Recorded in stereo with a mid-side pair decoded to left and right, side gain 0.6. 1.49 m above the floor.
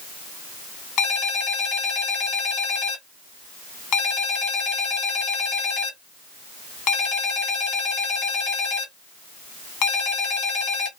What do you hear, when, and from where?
1.0 s a ringtone: 70° left, 1.5 m